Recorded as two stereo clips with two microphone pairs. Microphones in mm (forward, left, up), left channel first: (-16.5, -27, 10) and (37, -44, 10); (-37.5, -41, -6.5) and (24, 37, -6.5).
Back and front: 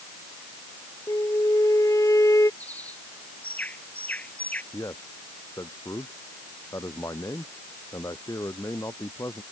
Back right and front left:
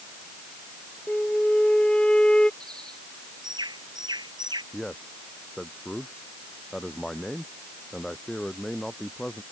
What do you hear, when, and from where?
1.1 s a flute: 150° left
2.6 s a bird: 95° left
4.7 s a man speaking: 145° left